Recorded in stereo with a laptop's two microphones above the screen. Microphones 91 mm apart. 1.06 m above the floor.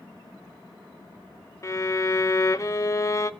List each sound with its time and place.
1.6 s a violin: 35° left (ahead or behind), 0.7 m